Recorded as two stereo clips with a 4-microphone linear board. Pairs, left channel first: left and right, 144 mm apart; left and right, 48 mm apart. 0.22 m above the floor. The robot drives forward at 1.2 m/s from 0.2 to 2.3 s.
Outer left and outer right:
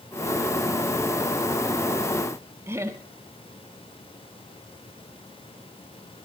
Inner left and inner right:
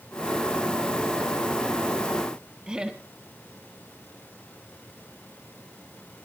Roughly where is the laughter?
Centre.